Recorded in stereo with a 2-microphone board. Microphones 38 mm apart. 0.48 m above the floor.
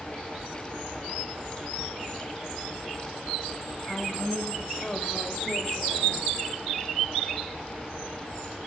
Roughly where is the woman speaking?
Centre.